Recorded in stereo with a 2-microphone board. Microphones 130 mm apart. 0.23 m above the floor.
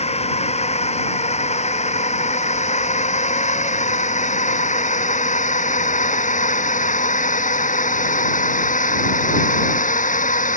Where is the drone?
55° left (ahead or behind); by 10.6 s 85° left.